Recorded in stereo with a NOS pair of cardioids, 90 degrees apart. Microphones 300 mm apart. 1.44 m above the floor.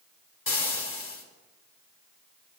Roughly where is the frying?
Ahead left.